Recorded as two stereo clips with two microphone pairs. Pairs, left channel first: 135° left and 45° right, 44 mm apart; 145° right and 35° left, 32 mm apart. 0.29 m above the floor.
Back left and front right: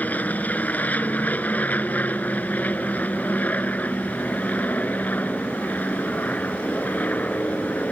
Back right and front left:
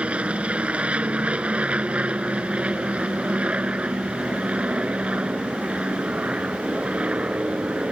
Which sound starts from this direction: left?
An aircraft, at 0.0 s.